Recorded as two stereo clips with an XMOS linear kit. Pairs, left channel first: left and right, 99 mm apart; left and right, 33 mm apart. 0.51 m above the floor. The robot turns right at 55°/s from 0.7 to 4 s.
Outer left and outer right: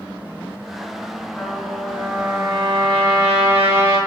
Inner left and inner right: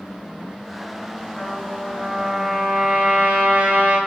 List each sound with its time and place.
1.4 s a trumpet: 160° left, 7.5 m; by 4.0 s 55° right, 7.5 m